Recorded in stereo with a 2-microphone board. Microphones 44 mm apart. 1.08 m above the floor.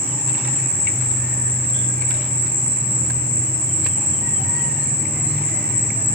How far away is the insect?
About 3.5 m.